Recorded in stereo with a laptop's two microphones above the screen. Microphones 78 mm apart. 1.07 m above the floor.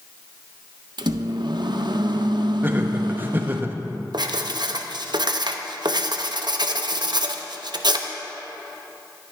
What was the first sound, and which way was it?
A microwave, 70° right (ahead or behind).